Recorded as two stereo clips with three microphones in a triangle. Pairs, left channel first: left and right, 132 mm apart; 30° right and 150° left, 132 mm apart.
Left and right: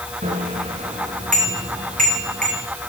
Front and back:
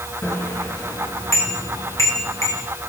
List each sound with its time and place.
0.2 s a bicycle bell: 100° right, 8.5 m